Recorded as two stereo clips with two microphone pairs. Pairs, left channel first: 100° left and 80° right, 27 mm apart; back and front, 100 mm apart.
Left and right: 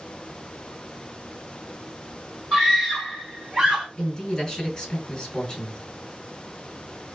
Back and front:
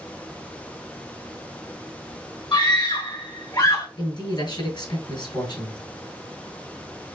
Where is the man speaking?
155° left, 2 m.